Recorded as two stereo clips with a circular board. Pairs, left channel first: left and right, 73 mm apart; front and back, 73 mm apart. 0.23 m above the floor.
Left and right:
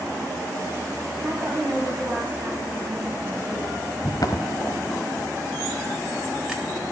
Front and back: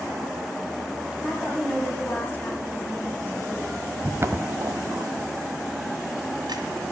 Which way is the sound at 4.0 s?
115° left.